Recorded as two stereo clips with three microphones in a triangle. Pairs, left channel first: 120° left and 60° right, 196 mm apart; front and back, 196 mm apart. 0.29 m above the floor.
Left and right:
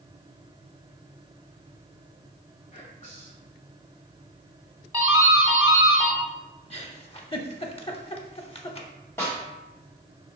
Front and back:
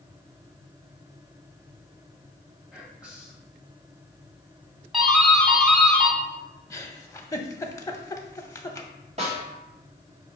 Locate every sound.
2.7 s whispering: 100° left, 1.6 m
4.9 s a doorbell: 105° right, 1.7 m
6.7 s a giggle: 70° left, 0.6 m
9.2 s a snare drum: 170° right, 1.9 m